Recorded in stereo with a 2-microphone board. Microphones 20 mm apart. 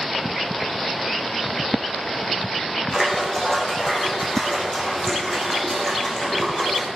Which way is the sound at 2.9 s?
20° left (ahead or behind).